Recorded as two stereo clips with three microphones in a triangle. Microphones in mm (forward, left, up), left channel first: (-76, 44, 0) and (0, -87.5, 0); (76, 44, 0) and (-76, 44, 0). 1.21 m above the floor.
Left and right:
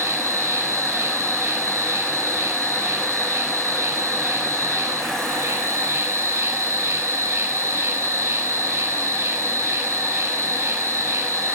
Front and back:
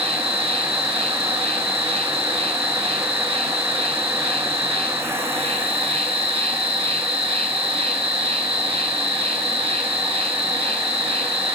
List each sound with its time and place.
0.0 s an insect: 135° right, 8.5 m